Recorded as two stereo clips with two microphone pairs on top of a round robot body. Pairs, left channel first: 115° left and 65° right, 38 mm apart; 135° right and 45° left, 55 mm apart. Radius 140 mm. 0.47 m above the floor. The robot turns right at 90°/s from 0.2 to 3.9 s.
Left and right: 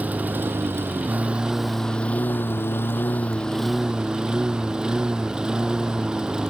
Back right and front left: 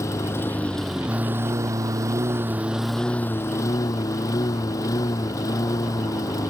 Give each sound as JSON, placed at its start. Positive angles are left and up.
{"t": 0.0, "sound": "a lawn mower", "azimuth_deg": -105}